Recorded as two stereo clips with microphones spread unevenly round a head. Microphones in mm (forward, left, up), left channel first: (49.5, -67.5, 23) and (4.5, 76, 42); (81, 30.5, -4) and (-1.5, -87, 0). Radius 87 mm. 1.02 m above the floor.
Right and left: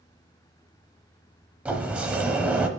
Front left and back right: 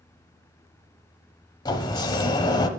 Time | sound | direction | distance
1.6 | a sliding door | 50° left | 0.9 m